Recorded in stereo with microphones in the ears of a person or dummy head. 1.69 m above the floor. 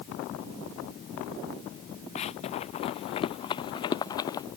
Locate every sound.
2.1 s running footsteps: 30° left (ahead or behind); by 4.5 s 15° left (ahead or behind)